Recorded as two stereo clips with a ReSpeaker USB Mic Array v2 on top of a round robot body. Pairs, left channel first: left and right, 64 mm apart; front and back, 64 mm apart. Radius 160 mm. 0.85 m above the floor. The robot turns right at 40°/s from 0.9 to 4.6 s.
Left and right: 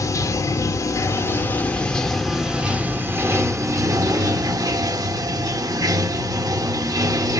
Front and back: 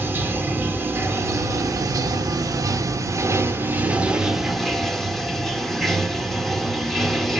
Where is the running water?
125° left, 0.8 m; by 7.4 s 85° right, 0.8 m.